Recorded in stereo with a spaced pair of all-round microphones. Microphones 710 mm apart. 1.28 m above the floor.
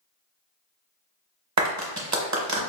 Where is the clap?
25° right (ahead or behind), 0.7 m.